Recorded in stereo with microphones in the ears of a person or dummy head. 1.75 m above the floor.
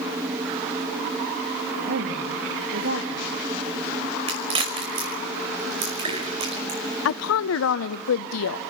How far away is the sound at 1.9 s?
About 3 m.